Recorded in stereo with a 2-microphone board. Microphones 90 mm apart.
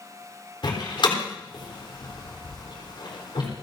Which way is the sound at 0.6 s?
65° left (ahead or behind).